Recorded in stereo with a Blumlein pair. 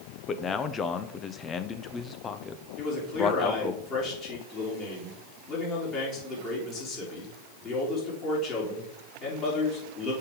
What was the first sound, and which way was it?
A man speaking, 25° left.